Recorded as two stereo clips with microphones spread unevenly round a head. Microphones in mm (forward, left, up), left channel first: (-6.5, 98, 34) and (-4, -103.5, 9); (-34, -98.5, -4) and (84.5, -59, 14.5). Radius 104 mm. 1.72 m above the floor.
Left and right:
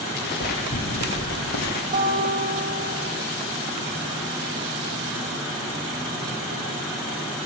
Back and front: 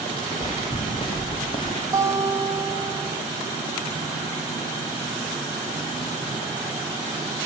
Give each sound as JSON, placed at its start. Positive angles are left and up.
{"t": 0.2, "sound": "footsteps", "azimuth_deg": 130, "distance_m": 6.5}
{"t": 1.9, "sound": "a guitar", "azimuth_deg": -40, "distance_m": 7.5}